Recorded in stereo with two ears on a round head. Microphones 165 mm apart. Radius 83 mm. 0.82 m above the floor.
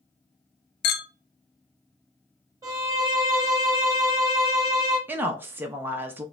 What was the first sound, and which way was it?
A clink, 60° left (ahead or behind).